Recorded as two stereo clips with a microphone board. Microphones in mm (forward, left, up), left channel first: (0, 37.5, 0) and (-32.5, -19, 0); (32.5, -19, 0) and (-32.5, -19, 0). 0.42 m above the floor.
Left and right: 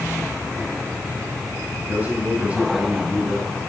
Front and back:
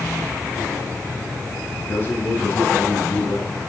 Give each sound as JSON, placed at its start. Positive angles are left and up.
{"t": 1.8, "sound": "a man speaking", "azimuth_deg": -60, "distance_m": 6.5}